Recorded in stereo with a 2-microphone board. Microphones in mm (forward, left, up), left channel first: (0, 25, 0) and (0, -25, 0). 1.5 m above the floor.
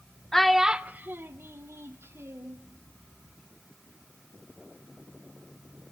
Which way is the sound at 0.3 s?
10° left (ahead or behind).